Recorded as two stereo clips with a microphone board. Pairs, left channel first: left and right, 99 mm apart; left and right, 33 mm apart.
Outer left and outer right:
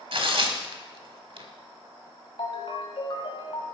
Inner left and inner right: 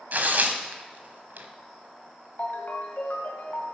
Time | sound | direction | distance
0.1 | tearing paper | 65° right (ahead or behind) | 1.1 m
2.4 | a ringtone | 65° left (ahead or behind) | 1.7 m